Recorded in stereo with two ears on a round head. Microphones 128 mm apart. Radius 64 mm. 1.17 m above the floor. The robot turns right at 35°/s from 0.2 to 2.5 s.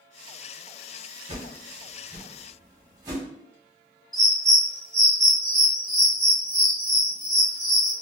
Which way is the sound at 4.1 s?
5° left (ahead or behind).